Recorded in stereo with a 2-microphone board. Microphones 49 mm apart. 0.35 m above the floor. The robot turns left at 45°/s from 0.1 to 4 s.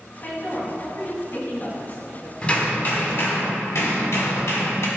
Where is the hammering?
160° left, 1.9 m; by 4.9 s 90° left, 1.9 m.